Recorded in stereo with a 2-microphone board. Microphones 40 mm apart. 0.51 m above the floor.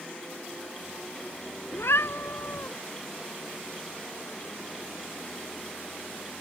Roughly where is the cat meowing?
Left.